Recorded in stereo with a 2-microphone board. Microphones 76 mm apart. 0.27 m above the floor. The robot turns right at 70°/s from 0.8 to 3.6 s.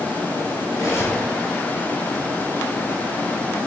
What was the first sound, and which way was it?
Cutlery clinking, 130° left.